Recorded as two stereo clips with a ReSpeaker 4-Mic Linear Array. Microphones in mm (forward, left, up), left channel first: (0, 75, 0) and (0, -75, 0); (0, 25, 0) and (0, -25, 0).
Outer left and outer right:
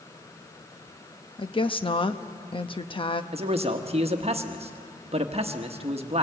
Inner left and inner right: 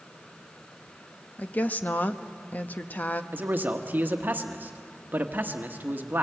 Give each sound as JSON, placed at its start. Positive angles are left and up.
{"t": 1.4, "sound": "a woman speaking", "side_deg": 35, "distance_m": 0.9}
{"t": 3.3, "sound": "a man speaking", "side_deg": -40, "distance_m": 1.3}